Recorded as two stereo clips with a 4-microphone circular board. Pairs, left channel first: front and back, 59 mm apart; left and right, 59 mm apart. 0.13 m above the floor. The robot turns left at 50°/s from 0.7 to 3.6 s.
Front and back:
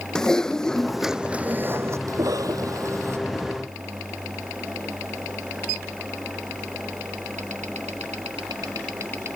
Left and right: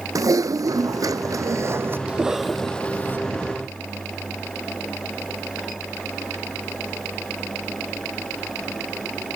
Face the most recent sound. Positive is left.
turn(degrees=120)